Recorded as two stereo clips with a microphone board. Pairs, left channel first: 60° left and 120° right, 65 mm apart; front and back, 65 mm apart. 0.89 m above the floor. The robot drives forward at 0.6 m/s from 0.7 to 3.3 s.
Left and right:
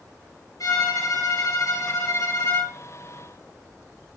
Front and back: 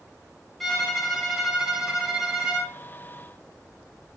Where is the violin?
85° left, 4 m; by 2.7 s 105° left, 4 m.